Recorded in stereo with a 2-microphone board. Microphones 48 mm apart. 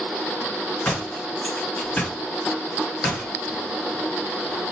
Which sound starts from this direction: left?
A door slam, at 0.8 s.